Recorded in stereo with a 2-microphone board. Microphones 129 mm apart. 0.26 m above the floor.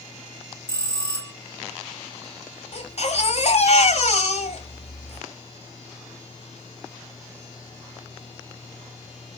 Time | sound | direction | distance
0.7 | a bell | 35° left (ahead or behind) | 0.9 m
2.7 | a baby crying | 55° left (ahead or behind) | 1.2 m